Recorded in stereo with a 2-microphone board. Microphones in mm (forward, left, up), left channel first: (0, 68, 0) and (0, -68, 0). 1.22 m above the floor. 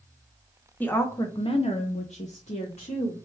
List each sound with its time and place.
0.8 s a woman speaking: 15° left (ahead or behind), 0.8 m; by 3.1 s 45° left (ahead or behind), 1.2 m